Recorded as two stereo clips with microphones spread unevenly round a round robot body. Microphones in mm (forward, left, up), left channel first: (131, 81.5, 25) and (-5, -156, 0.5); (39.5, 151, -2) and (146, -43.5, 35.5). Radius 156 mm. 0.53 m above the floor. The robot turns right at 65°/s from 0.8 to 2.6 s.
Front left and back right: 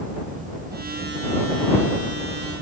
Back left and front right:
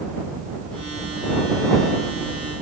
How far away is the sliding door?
I don't hear a sliding door.